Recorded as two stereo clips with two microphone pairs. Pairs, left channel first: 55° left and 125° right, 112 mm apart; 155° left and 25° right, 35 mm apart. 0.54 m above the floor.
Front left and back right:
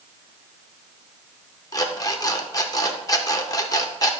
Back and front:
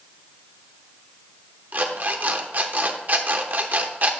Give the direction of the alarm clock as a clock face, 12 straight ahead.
12 o'clock.